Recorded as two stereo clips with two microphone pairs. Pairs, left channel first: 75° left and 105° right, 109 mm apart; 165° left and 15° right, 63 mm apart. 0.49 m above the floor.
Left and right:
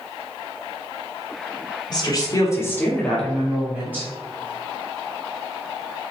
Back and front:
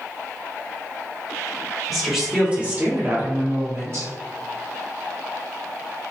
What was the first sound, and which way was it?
A woman speaking, 75° left.